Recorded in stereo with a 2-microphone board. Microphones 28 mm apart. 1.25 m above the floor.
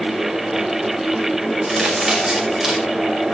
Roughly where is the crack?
Centre.